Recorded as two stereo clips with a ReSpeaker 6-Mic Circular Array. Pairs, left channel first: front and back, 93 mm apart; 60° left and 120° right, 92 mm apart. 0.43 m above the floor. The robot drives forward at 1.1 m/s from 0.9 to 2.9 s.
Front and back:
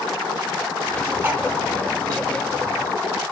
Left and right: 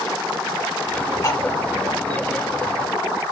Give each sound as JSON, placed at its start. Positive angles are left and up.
{"t": 1.2, "sound": "cutlery clinking", "azimuth_deg": 110, "distance_m": 2.5}